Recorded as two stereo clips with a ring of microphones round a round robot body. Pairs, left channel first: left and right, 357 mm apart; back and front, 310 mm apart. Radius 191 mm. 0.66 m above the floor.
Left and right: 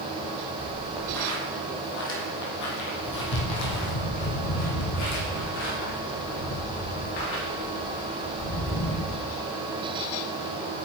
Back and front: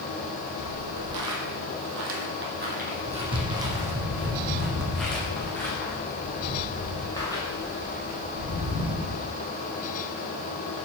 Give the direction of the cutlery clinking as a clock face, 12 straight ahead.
No cutlery clinking in this recording.